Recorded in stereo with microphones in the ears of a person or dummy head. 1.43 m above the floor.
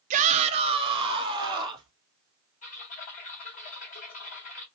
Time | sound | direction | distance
0.1 | a shout | 35° right (ahead or behind) | 0.6 m
2.6 | typing on a keyboard | 30° left (ahead or behind) | 0.9 m